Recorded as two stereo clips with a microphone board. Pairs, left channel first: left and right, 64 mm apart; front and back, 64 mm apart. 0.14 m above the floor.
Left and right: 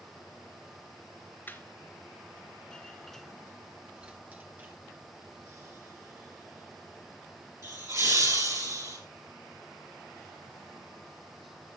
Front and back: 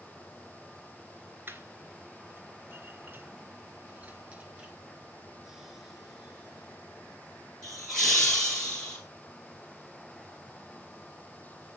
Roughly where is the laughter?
Behind left.